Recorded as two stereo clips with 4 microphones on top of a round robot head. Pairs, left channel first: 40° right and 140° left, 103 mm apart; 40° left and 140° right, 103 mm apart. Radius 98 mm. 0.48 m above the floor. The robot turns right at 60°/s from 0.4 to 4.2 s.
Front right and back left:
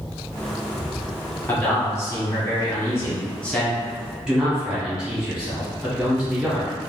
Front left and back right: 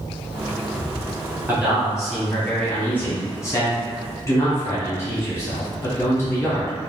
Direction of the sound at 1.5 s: 95° right.